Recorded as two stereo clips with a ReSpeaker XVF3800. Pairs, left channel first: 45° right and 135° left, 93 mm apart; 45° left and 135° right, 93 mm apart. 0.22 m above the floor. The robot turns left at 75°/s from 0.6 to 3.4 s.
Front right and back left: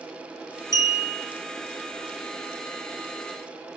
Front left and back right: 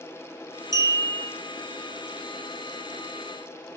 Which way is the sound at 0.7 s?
80° right.